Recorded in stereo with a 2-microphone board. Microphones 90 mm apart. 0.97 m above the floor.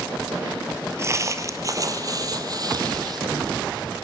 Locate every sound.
1.0 s footsteps: 35° right (ahead or behind), 1.4 m; by 4.0 s 55° right (ahead or behind), 3 m